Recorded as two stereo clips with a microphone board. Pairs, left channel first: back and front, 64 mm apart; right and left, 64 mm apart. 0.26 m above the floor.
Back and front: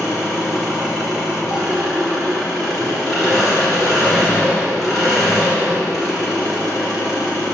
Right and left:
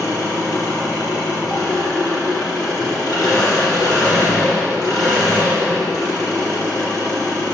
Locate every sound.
0.0 s an engine running: 90° right, 3 m